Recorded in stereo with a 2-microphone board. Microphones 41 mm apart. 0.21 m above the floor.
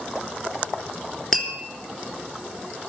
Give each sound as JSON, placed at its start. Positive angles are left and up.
{"t": 1.3, "sound": "tapping", "side_deg": 5, "distance_m": 3.5}